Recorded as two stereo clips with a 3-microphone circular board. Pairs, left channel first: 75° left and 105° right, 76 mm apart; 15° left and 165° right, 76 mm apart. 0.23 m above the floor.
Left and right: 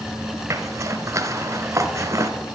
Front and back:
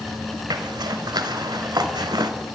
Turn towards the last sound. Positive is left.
turn(degrees=-150)